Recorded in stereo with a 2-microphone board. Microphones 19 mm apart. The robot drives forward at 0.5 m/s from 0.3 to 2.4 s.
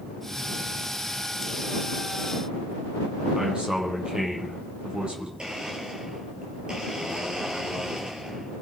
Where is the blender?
45° right (ahead or behind), 4 m.